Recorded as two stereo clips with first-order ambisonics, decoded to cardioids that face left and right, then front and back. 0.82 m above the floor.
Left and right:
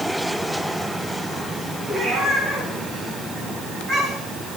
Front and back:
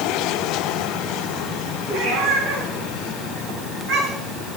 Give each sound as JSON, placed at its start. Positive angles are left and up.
{"t": 1.9, "sound": "a cat meowing", "azimuth_deg": -145, "distance_m": 4.0}